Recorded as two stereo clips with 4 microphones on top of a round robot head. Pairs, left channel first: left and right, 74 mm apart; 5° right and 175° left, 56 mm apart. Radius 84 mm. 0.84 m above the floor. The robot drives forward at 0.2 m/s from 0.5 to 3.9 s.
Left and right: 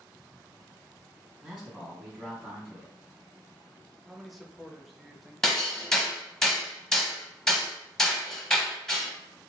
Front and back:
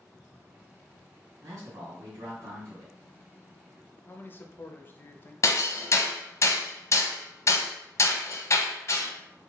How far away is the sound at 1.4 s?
About 1.9 m.